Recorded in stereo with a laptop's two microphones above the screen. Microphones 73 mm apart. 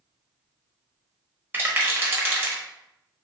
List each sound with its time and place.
1.5 s a rattle: 25° right (ahead or behind), 1.0 m